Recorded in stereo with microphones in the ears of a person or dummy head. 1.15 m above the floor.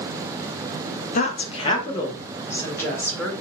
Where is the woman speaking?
35° left (ahead or behind), 0.6 m; by 3.3 s 10° left (ahead or behind), 1.6 m.